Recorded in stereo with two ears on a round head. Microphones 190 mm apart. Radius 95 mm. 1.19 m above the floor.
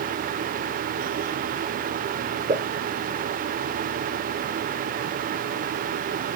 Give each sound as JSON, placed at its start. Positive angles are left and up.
{"t": 2.5, "sound": "a pop", "side_deg": -20, "distance_m": 2.0}